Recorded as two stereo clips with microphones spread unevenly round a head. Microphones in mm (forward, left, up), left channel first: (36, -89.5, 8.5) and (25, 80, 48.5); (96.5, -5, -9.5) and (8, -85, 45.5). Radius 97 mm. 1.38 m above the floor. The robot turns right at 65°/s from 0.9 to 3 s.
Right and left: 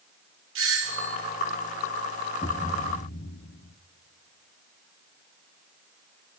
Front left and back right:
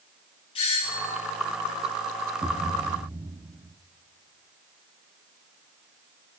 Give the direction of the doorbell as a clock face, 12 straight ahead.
9 o'clock.